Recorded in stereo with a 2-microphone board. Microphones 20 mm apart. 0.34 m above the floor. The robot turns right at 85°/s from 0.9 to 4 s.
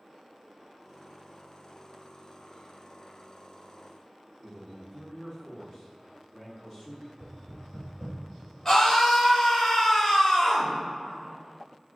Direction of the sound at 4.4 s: 40° left (ahead or behind).